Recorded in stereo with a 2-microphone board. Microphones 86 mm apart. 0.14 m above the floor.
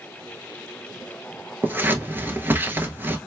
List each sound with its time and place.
1.6 s scissors: 25° right (ahead or behind), 0.8 m